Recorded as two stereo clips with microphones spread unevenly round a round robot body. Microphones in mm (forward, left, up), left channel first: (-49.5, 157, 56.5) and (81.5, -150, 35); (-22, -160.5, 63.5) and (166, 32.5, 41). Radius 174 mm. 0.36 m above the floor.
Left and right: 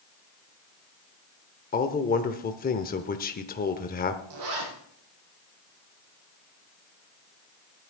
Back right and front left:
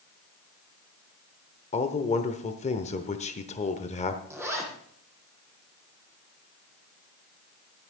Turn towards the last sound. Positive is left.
turn(degrees=-35)